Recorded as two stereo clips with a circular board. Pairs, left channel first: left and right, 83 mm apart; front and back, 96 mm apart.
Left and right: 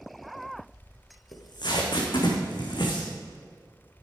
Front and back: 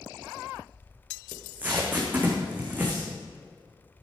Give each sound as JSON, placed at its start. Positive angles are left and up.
{"t": 1.3, "sound": "tape being pulled", "azimuth_deg": 110, "distance_m": 2.5}